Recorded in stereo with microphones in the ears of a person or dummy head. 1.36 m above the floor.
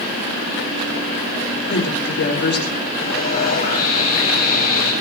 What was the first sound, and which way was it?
A woman speaking, 60° left (ahead or behind).